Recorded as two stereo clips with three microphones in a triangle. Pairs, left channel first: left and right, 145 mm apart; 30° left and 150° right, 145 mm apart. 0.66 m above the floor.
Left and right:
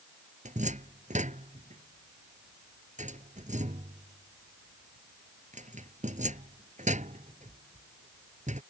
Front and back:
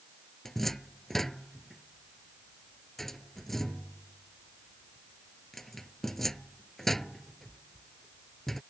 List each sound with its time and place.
0.5 s a cupboard door: 60° right